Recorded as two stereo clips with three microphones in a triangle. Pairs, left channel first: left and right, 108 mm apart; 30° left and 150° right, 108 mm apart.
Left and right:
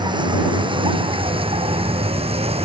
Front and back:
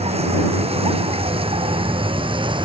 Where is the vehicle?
135° right; by 2.7 s 110° right.